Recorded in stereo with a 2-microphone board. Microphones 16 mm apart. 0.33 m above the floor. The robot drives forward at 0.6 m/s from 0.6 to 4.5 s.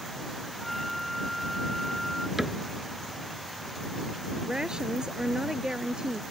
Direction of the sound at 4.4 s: 55° right (ahead or behind).